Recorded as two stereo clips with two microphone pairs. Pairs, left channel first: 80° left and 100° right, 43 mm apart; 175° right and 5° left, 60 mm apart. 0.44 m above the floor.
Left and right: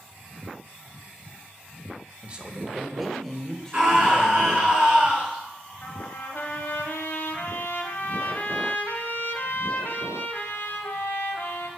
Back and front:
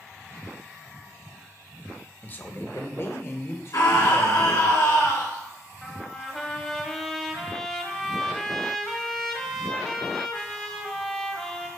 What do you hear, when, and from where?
2.2 s a man speaking: 140° right, 0.8 m; by 4.7 s 145° left, 1.8 m
3.7 s a scream: 165° right, 4.5 m
5.8 s a trumpet: 105° left, 1.1 m